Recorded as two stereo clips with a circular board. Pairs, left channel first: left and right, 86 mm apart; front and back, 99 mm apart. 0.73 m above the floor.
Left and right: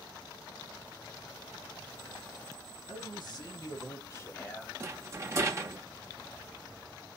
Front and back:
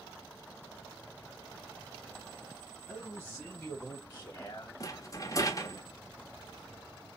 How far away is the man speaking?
About 1.9 m.